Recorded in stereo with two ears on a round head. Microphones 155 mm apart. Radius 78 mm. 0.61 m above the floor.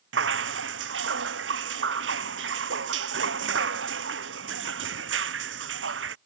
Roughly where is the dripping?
Right.